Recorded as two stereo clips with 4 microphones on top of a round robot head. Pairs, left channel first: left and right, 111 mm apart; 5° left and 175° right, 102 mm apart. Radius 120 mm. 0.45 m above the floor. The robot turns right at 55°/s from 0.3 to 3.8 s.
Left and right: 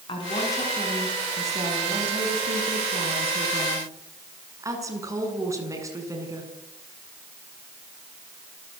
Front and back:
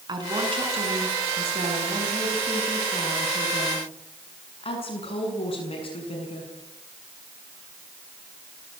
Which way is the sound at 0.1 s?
140° left.